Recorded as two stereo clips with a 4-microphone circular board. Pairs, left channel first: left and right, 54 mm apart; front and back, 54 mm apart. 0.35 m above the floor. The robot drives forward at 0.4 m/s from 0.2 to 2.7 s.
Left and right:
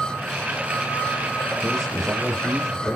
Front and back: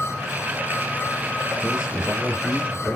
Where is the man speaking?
135° left, 1.3 m; by 3.0 s 160° left, 1.4 m.